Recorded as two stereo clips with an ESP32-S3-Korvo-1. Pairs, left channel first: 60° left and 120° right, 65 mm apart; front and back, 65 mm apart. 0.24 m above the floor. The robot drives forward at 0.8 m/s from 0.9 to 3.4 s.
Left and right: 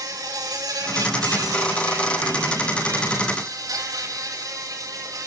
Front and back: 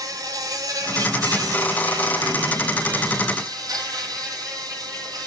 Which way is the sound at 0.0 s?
145° right.